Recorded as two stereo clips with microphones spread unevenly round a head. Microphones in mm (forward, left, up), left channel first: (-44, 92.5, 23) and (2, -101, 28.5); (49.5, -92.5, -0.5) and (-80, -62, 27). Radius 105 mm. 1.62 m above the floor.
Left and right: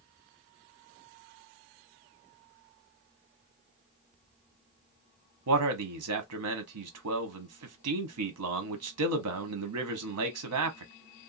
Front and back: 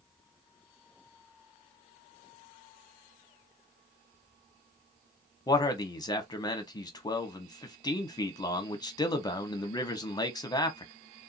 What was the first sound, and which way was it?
A man speaking, 75° right.